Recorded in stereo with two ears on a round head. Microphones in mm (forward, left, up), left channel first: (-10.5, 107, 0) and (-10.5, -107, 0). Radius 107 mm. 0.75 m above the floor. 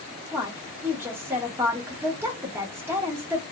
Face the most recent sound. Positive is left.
turn(degrees=-10)  # may be behind; listen again after turning